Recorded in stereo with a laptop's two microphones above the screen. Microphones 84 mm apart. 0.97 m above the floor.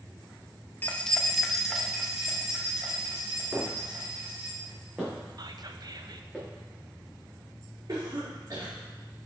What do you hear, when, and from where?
0.8 s keys jangling: 20° left (ahead or behind), 0.8 m; by 4.5 s 15° right (ahead or behind), 4.5 m
3.5 s footsteps: 25° right (ahead or behind), 3.5 m; by 6.4 s 5° right (ahead or behind), 6 m
5.4 s whispering: 50° right (ahead or behind), 0.6 m
7.9 s a cough: 55° right (ahead or behind), 2 m